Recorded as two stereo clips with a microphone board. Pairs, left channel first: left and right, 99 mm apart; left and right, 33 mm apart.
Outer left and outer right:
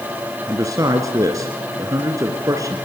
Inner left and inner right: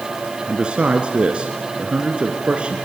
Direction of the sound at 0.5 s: 35° right (ahead or behind).